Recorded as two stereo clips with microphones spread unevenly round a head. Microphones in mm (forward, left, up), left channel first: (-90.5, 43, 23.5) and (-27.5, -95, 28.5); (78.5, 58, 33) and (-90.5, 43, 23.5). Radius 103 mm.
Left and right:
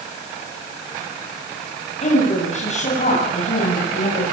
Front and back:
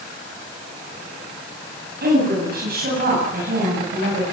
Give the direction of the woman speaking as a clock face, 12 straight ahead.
7 o'clock.